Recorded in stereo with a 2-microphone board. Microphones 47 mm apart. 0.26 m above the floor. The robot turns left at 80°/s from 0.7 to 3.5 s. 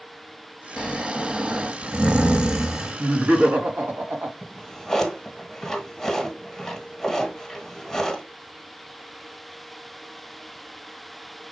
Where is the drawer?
5° left (ahead or behind), 1.5 m.